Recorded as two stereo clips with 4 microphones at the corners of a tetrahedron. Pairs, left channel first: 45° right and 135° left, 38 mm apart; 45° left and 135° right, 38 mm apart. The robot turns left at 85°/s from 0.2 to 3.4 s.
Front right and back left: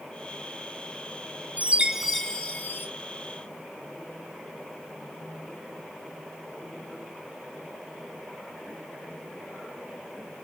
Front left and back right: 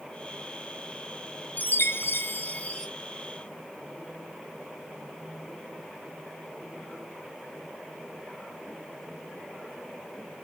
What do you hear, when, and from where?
1.6 s a chime: 85° left, 0.5 m; by 2.9 s 25° right, 0.5 m